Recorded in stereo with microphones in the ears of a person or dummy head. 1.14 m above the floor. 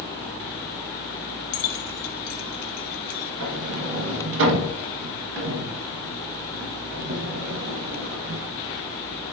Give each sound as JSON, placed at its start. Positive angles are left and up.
{"t": 1.5, "sound": "keys jangling", "side_deg": 55, "distance_m": 1.0}
{"t": 3.4, "sound": "a sliding door", "side_deg": -60, "distance_m": 1.2}